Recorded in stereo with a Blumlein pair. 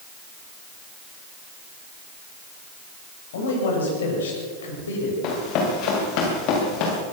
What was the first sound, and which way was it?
A man speaking, 60° left.